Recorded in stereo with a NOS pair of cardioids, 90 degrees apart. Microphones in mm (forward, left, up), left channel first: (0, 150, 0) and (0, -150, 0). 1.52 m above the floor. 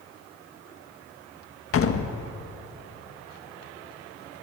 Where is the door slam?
50° left, 1.5 m.